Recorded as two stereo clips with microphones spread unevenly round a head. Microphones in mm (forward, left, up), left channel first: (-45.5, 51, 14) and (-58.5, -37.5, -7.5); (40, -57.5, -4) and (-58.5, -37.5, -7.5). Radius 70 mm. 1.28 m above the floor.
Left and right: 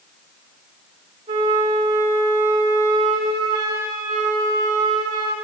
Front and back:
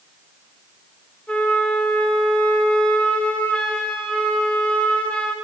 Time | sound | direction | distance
1.3 | a flute | 85° right | 2.5 m